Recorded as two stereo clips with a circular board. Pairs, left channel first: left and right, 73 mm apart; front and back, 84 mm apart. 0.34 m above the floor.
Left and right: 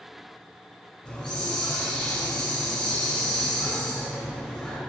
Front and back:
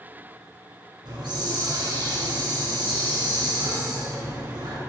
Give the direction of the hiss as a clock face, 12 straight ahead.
7 o'clock.